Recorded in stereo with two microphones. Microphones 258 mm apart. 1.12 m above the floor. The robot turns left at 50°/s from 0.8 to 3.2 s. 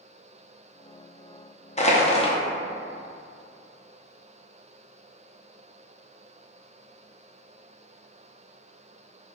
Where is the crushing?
25° left (ahead or behind), 0.5 m; by 2.4 s 20° left (ahead or behind), 0.5 m.